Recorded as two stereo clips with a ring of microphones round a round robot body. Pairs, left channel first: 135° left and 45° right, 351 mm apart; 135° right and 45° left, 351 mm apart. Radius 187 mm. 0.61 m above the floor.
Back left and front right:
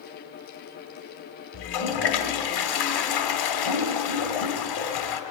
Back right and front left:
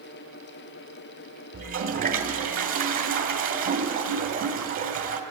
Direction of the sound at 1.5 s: 115° left.